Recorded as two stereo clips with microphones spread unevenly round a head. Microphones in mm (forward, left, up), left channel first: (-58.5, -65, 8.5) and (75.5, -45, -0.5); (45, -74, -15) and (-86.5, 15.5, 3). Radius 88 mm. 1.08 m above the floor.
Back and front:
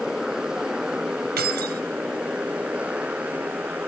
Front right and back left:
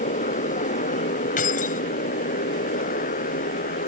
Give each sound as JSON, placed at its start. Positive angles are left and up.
{"t": 0.0, "sound": "a motorcycle", "azimuth_deg": -75}
{"t": 1.4, "sound": "keys jangling", "azimuth_deg": 15}